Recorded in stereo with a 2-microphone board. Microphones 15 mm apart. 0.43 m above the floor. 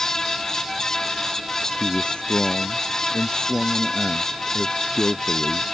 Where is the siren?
No siren in this recording.